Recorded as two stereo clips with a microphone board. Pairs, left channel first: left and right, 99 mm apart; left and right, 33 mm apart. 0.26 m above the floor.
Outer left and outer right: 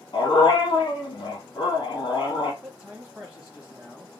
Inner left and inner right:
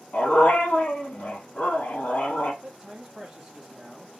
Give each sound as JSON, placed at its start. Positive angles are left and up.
{"t": 0.1, "sound": "a dog barking", "side_deg": 55, "distance_m": 2.5}
{"t": 2.6, "sound": "a man speaking", "side_deg": -10, "distance_m": 1.3}